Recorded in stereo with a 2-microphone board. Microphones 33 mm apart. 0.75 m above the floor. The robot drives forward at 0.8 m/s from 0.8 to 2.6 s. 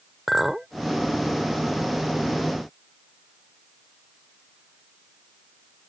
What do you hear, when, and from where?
0.3 s a clink: 10° right (ahead or behind)